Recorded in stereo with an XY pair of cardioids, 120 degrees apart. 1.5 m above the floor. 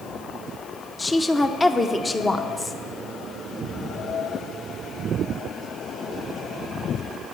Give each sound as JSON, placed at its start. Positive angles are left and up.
{"t": 1.0, "sound": "a woman speaking", "azimuth_deg": 20, "distance_m": 0.8}